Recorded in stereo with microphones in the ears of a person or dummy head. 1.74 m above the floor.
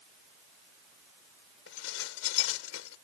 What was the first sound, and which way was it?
Dishes clattering, 80° left.